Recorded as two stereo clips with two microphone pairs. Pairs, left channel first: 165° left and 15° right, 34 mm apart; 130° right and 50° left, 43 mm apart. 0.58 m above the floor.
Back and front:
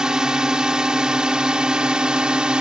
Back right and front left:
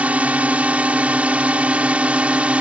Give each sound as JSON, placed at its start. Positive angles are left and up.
{"t": 0.0, "sound": "a drone", "azimuth_deg": 35}